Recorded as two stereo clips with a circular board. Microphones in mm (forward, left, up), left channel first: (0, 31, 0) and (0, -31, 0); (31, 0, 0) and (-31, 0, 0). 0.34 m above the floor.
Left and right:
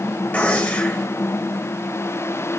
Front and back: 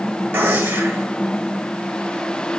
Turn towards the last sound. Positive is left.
turn(degrees=145)